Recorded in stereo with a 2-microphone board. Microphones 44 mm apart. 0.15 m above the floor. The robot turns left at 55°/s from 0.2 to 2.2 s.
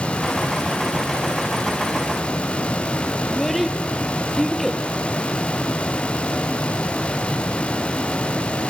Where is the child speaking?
Centre (ahead or behind), 3 m.